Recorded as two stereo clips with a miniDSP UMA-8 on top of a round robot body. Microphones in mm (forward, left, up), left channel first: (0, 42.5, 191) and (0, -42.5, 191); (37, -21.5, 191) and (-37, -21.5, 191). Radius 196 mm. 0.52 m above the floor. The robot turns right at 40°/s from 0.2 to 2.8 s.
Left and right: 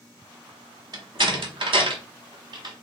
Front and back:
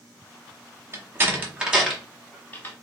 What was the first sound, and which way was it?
A door slam, 130° right.